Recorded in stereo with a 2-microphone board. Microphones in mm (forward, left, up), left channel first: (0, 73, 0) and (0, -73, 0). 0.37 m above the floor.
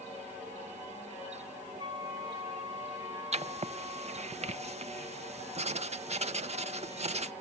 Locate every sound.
1.8 s a flute: 25° right (ahead or behind), 4 m
3.3 s writing: 45° right (ahead or behind), 0.5 m